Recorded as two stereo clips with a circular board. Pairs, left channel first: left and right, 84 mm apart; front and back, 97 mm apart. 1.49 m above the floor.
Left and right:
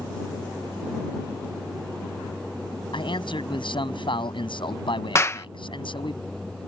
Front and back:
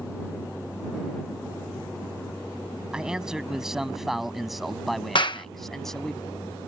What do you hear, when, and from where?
2.9 s a man speaking: 95° left; by 6.2 s 85° left
5.2 s a clap: 35° left